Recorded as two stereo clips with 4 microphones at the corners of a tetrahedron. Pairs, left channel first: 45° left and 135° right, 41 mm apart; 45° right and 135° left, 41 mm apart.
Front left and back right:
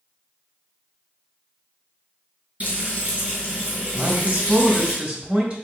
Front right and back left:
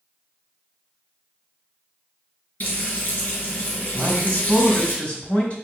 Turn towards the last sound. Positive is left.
turn(degrees=-85)